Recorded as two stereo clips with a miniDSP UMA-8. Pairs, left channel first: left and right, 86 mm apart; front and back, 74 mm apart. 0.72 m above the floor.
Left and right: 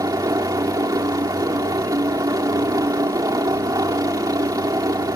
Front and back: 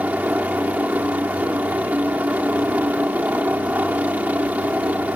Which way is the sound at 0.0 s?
115° right.